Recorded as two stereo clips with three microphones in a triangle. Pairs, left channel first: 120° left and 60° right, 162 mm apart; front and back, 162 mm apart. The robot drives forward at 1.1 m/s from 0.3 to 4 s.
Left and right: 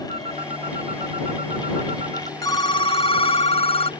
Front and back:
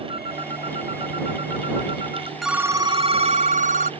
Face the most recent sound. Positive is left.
turn(degrees=165)